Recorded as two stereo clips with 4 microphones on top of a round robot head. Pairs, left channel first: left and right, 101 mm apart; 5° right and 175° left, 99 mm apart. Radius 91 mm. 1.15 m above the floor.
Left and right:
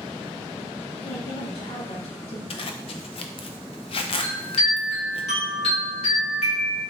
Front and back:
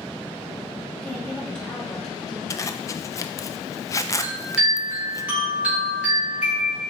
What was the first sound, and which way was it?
A woman speaking, 75° left.